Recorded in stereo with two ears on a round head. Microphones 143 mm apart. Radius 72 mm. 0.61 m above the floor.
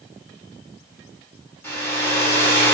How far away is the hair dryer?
About 2.5 m.